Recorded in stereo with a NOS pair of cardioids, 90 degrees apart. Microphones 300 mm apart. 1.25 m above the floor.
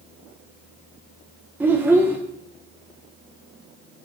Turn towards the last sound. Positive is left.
turn(degrees=-5)